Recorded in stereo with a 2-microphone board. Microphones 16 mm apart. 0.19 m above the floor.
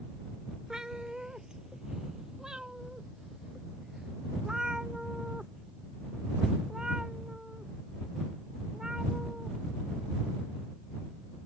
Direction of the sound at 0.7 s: 55° right (ahead or behind).